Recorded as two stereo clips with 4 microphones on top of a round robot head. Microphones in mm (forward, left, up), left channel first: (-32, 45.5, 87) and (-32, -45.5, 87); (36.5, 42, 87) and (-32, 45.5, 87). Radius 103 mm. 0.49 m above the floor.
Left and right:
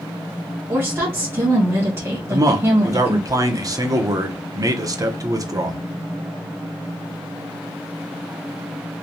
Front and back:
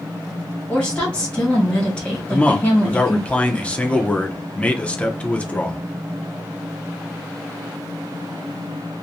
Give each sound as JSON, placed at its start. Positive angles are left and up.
{"t": 0.7, "sound": "a woman speaking", "azimuth_deg": -55, "distance_m": 1.4}
{"t": 2.3, "sound": "a man speaking", "azimuth_deg": -65, "distance_m": 0.8}